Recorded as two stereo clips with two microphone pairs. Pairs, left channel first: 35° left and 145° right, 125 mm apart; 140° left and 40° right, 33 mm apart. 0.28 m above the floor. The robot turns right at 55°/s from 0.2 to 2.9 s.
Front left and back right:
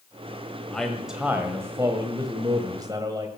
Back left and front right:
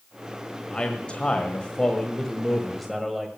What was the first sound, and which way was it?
A man speaking, 115° left.